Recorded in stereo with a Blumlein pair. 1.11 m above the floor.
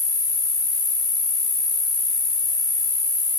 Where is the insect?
35° left, 4 m.